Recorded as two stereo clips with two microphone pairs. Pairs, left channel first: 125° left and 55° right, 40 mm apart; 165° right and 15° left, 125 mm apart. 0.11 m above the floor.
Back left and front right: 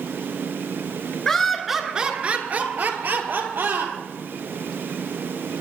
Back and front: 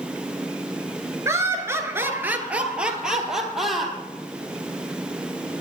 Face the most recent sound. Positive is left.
turn(degrees=-75)